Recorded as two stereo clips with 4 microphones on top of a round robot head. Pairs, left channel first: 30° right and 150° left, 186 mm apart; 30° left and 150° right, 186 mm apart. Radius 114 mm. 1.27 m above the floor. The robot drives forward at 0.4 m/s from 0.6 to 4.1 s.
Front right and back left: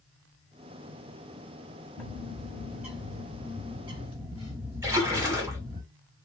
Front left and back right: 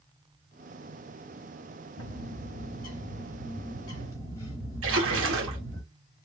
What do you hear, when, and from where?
2.0 s a bird: 50° left, 1.5 m; by 5.8 s 100° left, 1.3 m
4.8 s a splash: 135° right, 1.1 m